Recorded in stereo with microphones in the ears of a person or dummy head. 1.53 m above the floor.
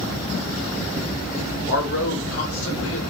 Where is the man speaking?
70° left (ahead or behind), 0.9 m.